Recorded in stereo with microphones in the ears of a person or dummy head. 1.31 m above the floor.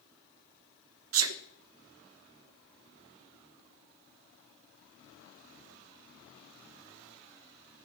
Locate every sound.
1.1 s a sneeze: 75° right (ahead or behind), 1.4 m